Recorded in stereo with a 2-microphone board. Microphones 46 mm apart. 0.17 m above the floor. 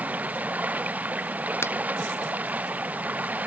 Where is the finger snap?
65° left (ahead or behind).